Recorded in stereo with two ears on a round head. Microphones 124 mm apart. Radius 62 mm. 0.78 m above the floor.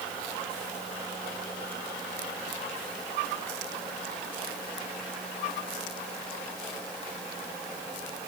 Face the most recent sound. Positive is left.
No sound to turn to.